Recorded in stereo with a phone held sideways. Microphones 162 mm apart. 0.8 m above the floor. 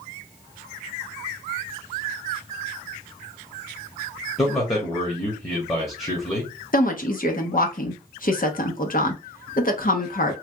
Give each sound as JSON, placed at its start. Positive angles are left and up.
{"t": 4.4, "sound": "a man speaking", "side_deg": 20, "distance_m": 1.3}
{"t": 6.7, "sound": "a woman speaking", "side_deg": 60, "distance_m": 0.9}